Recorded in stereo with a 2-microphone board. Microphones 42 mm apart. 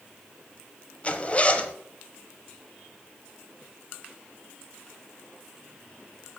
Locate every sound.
1.0 s a zipper: 30° left (ahead or behind), 0.9 m